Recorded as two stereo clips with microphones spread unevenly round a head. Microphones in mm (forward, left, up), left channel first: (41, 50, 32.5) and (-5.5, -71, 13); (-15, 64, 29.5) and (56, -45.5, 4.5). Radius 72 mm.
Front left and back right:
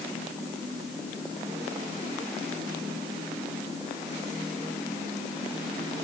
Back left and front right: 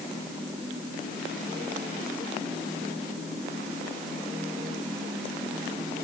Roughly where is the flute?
No flute in this recording.